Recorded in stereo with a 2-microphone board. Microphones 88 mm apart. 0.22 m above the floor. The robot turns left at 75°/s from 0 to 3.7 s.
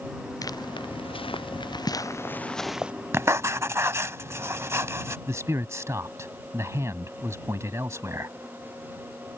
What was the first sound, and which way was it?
Footsteps, 40° left (ahead or behind).